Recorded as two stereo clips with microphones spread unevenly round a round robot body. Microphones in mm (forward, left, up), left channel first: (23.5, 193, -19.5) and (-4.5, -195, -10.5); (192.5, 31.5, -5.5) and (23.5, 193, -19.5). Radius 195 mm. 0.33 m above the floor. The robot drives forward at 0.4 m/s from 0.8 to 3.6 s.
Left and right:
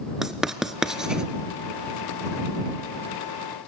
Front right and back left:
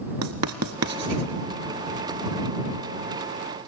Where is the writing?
175° left, 0.6 m; by 1.3 s straight behind, 0.8 m.